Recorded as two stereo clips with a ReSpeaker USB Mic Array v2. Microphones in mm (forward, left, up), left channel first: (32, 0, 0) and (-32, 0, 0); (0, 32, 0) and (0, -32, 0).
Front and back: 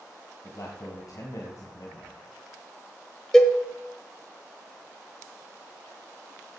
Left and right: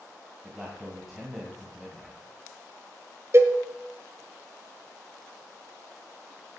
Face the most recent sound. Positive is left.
turn(degrees=-80)